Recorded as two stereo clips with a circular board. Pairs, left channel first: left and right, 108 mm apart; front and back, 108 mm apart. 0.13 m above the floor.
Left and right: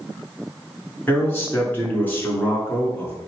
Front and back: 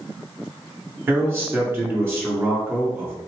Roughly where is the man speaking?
Behind left.